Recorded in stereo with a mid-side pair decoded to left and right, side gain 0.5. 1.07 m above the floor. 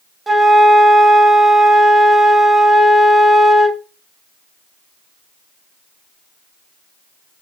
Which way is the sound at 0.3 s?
20° right.